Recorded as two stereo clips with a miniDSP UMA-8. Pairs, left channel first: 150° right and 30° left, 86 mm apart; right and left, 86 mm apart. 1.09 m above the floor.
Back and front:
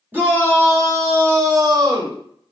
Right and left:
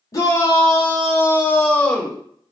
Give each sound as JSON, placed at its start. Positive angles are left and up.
{"t": 0.1, "sound": "a shout", "azimuth_deg": -40, "distance_m": 1.7}